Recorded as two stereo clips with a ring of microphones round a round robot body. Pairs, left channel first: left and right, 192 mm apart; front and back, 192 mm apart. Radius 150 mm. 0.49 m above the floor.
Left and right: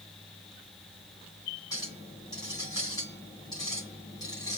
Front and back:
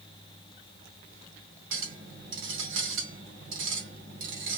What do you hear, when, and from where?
1.7 s a clink: 165° left, 2.5 m